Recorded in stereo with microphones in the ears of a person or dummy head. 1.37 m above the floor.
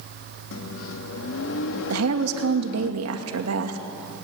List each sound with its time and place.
0.5 s a microwave: 75° left (ahead or behind), 1.6 m
1.9 s a woman speaking: 85° right, 2.5 m